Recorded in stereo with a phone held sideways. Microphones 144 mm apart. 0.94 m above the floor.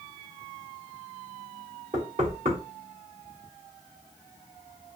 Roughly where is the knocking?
Right.